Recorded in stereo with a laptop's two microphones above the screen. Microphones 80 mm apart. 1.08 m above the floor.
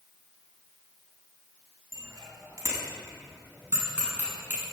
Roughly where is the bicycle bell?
Right.